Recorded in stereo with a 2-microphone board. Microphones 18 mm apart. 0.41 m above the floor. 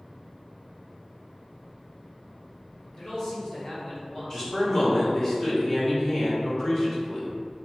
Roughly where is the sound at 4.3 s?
Left.